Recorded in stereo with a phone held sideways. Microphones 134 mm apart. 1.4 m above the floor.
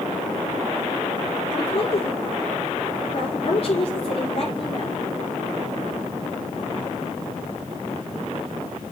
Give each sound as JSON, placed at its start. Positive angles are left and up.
{"t": 1.5, "sound": "a woman speaking", "side_deg": 55, "distance_m": 4.5}